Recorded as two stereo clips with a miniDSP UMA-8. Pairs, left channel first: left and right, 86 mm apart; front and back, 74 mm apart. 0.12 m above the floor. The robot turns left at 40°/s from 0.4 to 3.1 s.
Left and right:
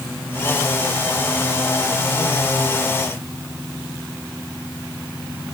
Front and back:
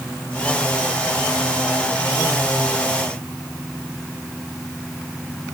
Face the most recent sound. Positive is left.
No sound to turn to.